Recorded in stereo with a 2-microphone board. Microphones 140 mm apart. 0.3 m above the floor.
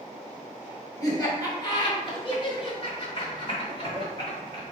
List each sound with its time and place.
1.0 s laughter: 25° left (ahead or behind), 1.5 m; by 4.6 s 35° left (ahead or behind), 1.9 m